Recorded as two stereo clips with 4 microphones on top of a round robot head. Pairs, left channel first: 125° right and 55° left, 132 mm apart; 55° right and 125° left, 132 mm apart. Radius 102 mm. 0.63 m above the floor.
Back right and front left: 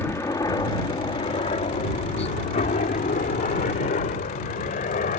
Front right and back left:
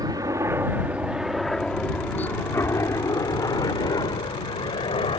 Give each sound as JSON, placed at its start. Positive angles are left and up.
{"t": 0.0, "sound": "a helicopter", "azimuth_deg": 170}